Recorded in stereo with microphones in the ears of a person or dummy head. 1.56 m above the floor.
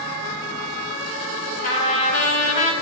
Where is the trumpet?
40° left (ahead or behind), 1.9 m.